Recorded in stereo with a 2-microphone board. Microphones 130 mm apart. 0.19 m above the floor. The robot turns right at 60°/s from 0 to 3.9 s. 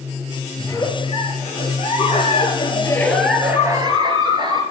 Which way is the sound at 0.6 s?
20° left.